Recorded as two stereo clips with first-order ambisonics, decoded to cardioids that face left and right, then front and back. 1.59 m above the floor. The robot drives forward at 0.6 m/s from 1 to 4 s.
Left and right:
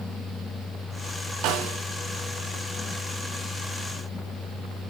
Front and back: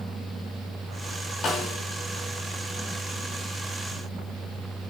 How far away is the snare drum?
About 4 m.